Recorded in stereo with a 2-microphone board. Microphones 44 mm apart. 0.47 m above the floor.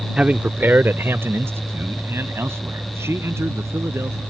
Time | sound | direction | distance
0.2 | a man speaking | 25° right (ahead or behind) | ?